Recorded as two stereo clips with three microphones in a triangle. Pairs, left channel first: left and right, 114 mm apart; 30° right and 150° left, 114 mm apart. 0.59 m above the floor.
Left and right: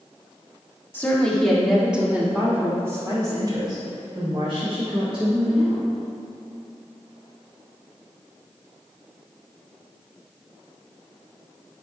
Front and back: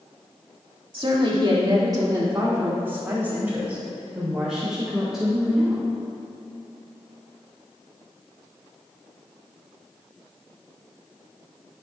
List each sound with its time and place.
0.9 s a woman speaking: 155° left, 1.6 m; by 5.8 s 120° right, 3.5 m